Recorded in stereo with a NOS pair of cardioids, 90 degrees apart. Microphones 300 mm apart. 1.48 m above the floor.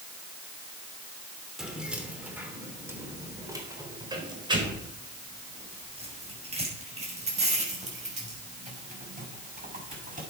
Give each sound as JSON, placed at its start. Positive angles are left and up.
{"t": 1.6, "sound": "keys jangling", "azimuth_deg": 0, "distance_m": 3.0}